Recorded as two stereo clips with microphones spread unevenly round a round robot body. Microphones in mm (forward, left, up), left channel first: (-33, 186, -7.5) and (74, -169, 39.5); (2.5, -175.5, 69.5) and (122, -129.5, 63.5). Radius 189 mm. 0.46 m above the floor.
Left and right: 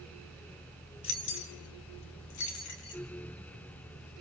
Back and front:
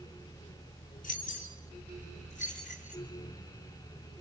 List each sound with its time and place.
1.0 s keys jangling: 165° left, 3 m; by 3.0 s 105° left, 3.5 m